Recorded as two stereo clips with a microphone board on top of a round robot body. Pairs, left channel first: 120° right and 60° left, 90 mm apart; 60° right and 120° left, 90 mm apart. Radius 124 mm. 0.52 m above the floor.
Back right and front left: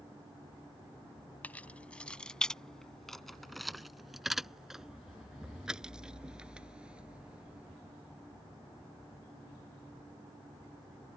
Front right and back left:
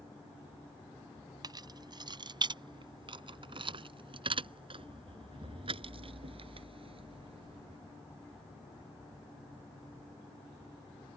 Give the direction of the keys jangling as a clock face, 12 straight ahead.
6 o'clock.